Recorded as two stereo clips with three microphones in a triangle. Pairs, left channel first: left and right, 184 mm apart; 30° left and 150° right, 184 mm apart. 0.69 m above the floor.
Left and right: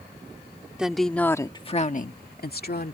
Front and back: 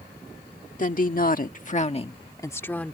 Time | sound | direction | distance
0.8 | a woman speaking | 5° right | ?